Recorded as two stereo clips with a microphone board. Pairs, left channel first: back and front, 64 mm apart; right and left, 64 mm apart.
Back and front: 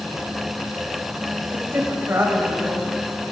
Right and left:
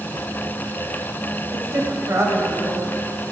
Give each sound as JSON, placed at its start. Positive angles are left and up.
{"t": 1.5, "sound": "a woman speaking", "azimuth_deg": 50, "distance_m": 2.5}